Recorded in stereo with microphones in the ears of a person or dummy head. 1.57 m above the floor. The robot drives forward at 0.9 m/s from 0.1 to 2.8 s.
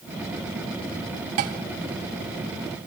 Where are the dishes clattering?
45° right (ahead or behind), 1.1 m; by 1.6 s 40° right (ahead or behind), 1.2 m.